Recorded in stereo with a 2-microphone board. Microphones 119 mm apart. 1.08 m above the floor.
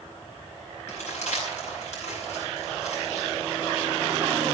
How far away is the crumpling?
About 7.5 m.